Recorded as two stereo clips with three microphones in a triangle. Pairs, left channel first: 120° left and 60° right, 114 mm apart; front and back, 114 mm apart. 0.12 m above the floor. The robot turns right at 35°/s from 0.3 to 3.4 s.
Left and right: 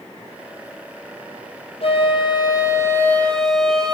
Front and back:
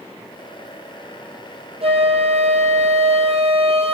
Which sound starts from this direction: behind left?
A flute, at 1.8 s.